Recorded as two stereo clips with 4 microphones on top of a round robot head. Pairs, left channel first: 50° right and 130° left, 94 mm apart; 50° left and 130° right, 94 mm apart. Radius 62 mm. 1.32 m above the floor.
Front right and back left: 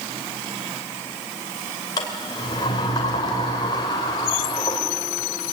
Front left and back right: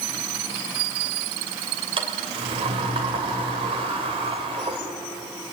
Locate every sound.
2.0 s a sliding door: 100° right, 3 m